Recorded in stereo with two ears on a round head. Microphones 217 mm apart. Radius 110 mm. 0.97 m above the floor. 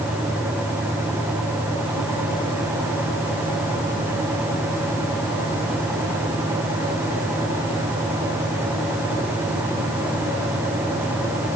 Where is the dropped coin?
No dropped coin in this recording.